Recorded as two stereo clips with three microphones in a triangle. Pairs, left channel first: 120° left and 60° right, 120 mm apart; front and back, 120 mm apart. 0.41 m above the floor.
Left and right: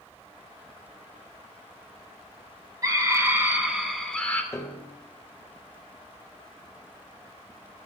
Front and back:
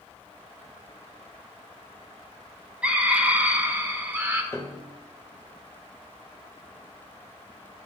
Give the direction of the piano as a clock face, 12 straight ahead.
10 o'clock.